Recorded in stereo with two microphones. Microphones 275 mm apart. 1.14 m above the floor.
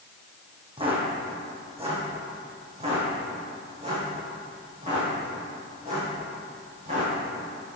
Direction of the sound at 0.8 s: 20° right (ahead or behind).